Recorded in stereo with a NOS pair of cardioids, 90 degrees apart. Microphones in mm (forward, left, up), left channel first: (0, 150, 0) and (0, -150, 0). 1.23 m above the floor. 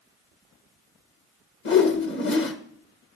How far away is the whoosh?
About 1.3 m.